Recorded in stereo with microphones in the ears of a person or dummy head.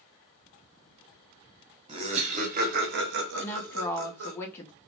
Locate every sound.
1.9 s laughter: 30° right (ahead or behind), 1.1 m; by 4.4 s 75° right (ahead or behind), 1.2 m
3.4 s a woman speaking: 10° left (ahead or behind), 0.7 m